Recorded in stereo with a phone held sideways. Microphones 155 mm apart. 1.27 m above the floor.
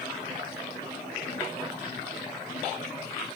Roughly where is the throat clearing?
I don't hear throat clearing.